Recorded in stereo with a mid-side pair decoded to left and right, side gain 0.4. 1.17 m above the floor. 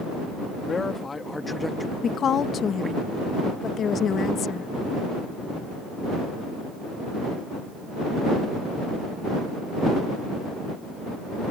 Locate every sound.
0.7 s a man speaking: 45° left; by 3.0 s 35° right
2.0 s a woman speaking: 60° left